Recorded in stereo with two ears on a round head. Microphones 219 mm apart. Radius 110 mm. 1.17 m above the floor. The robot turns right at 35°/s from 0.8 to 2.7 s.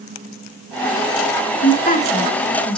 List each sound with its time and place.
1.6 s a woman speaking: 140° left, 2 m; by 2.8 s 175° left, 2 m